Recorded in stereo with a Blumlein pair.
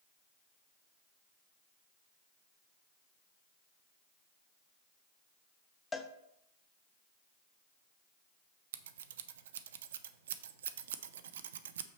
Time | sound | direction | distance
5.9 | a cowbell | 10° left | 0.7 m
8.7 | scissors | 60° right | 0.5 m